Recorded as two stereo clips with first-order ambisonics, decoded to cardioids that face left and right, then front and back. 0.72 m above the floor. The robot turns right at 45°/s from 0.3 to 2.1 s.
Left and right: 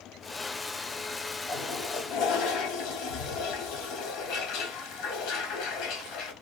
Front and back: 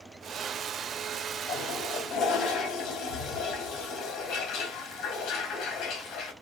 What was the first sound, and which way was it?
A toilet flushing, 20° left.